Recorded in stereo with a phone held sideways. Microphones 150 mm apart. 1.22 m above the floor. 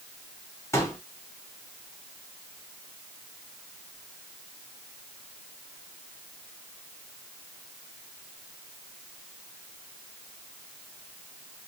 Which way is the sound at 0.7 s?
20° left (ahead or behind).